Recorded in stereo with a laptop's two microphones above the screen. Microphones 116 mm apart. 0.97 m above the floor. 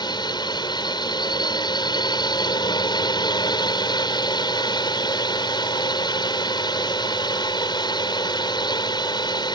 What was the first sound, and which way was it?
A drone, 40° left (ahead or behind).